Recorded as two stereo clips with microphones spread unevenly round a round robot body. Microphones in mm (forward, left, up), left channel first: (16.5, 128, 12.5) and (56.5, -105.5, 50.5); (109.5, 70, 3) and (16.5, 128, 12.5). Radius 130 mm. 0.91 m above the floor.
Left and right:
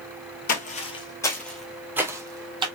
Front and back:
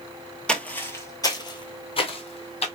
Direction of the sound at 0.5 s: 55° left.